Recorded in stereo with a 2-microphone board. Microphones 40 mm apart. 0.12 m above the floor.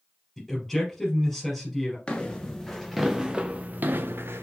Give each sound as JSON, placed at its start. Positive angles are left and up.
{"t": 0.4, "sound": "a man speaking", "side_deg": 5, "distance_m": 2.5}
{"t": 2.1, "sound": "footsteps", "side_deg": 20, "distance_m": 1.2}